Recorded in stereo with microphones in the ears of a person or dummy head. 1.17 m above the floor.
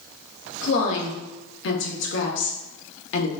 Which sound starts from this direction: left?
A woman speaking, at 0.6 s.